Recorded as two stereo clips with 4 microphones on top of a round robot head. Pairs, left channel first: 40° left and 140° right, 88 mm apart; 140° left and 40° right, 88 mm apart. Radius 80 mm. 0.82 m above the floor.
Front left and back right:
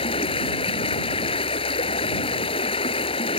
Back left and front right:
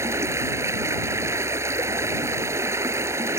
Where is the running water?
20° left.